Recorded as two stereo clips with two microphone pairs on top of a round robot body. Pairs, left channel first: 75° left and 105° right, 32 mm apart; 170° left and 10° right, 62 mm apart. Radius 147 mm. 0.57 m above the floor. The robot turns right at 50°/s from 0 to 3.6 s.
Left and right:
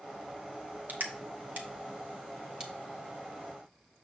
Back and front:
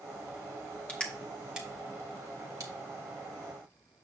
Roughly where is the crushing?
Behind right.